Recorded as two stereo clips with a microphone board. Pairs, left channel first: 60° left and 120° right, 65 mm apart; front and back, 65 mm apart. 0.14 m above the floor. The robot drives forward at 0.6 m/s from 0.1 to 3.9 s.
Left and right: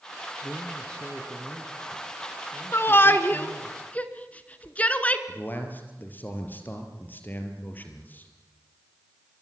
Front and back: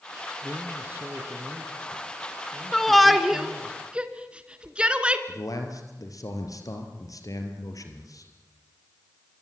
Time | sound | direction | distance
0.4 | a man speaking | 125° left | 2.5 m
2.7 | a shout | 80° left | 1.6 m
5.3 | a man speaking | 5° left | 4 m